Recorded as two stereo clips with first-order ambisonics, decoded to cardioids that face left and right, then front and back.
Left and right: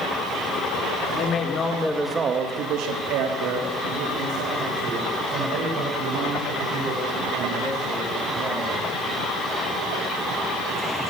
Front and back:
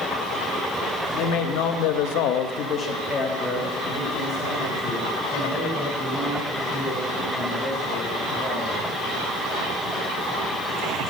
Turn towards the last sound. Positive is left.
turn(degrees=-105)